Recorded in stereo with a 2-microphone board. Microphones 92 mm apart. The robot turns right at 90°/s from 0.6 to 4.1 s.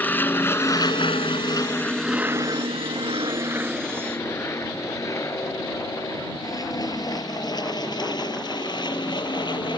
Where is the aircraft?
20° left (ahead or behind); by 9.8 s 50° left (ahead or behind).